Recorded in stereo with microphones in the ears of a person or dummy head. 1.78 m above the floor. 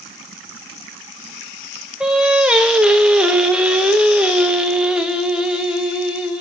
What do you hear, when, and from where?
2.0 s singing: centre (ahead or behind), 0.7 m